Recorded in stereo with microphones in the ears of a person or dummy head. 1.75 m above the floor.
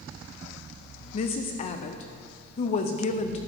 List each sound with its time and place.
1.1 s a woman speaking: 35° left (ahead or behind), 0.6 m